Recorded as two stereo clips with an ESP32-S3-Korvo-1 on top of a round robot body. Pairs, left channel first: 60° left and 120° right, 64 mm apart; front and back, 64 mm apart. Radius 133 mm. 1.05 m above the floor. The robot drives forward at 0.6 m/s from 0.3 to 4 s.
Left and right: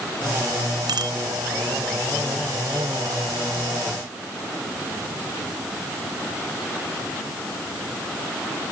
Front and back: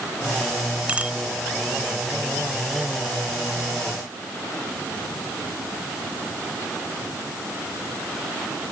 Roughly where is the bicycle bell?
Right.